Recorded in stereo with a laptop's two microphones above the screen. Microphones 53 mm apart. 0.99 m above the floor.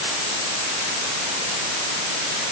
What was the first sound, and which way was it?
Only background noise.